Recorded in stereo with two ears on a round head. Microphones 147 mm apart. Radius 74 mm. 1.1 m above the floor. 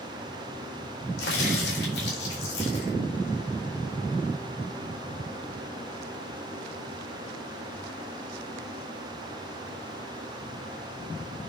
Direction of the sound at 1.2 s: 65° left (ahead or behind).